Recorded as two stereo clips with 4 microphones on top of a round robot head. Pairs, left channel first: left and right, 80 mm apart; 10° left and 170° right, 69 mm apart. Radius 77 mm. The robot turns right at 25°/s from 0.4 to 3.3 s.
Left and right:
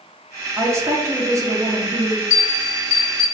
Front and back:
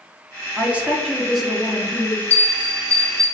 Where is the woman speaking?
120° right, 0.8 m; by 2.2 s 75° right, 0.8 m.